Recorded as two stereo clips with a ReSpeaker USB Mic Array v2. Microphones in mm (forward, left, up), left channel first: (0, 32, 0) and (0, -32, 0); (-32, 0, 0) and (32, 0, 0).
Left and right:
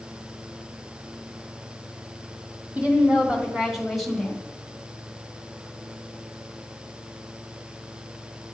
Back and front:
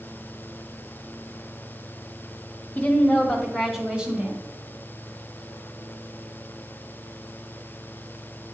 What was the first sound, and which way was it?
A woman speaking, 135° right.